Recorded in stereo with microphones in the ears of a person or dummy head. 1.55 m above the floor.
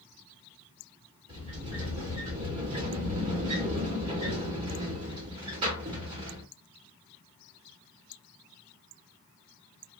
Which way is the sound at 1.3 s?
40° right (ahead or behind).